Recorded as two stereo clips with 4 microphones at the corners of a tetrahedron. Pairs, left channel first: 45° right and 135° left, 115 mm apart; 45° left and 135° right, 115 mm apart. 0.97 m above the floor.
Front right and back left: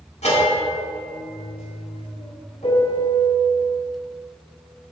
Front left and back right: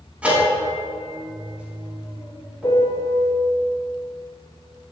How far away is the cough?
I don't hear a cough.